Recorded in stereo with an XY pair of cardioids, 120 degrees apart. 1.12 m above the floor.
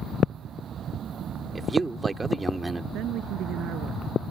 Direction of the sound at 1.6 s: 15° right.